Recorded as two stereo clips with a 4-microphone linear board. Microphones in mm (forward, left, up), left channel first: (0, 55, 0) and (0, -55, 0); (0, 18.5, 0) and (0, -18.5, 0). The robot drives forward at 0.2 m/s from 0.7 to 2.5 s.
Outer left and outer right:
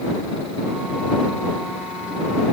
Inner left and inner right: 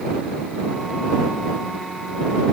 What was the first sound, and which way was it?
Only background noise.